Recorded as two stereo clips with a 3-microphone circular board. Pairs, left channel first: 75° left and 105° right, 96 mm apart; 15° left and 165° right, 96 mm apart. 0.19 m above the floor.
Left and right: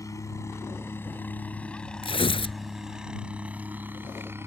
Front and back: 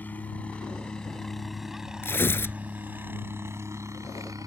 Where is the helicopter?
70° left; by 4.5 s 150° right.